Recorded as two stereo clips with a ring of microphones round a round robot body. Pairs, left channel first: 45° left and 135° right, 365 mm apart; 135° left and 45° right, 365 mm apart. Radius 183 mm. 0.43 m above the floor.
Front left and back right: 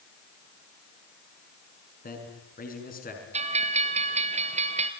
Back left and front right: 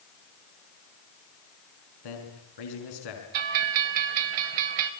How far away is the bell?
About 1.9 m.